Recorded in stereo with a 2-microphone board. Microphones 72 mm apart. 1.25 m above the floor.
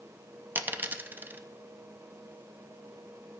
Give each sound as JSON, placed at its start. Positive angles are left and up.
{"t": 0.6, "sound": "a dropped coin", "side_deg": -25, "distance_m": 0.6}